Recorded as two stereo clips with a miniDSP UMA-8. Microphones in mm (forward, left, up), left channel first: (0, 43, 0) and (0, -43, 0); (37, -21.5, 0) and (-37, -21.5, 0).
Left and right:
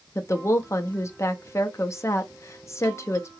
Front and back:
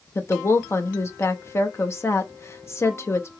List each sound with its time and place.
0.1 s a woman speaking: 40° left, 0.6 m